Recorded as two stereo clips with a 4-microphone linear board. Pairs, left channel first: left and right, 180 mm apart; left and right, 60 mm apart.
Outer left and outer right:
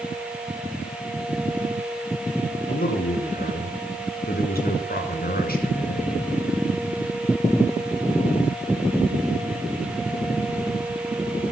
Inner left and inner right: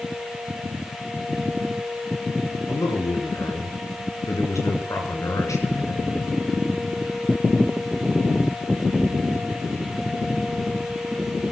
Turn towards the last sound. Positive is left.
turn(degrees=65)  # may be behind; listen again after turning